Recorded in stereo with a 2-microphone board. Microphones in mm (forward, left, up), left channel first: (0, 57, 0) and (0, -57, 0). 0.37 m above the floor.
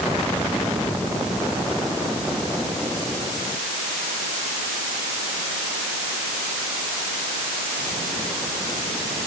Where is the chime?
I don't hear a chime.